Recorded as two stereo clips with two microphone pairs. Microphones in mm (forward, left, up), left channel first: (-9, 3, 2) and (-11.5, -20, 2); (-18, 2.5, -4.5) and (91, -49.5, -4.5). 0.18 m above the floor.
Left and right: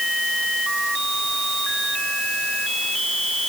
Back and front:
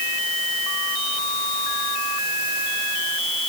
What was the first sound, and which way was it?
Only background noise.